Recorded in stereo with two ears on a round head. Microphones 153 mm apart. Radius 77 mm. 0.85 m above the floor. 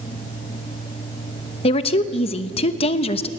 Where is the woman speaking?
35° left (ahead or behind), 1.0 m.